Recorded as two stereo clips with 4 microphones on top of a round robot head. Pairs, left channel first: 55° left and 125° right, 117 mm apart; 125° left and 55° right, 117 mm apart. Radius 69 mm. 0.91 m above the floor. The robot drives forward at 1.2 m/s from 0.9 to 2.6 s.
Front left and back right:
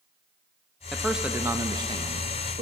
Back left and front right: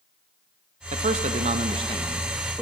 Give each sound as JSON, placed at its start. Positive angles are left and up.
{"t": 0.9, "sound": "a man speaking", "azimuth_deg": -35, "distance_m": 1.6}